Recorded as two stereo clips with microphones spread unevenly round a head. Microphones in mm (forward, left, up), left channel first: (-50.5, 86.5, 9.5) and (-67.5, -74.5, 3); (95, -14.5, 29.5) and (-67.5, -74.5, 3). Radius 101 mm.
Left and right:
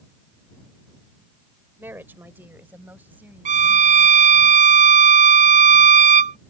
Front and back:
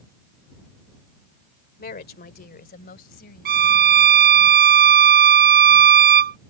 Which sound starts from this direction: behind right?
A violin, at 3.5 s.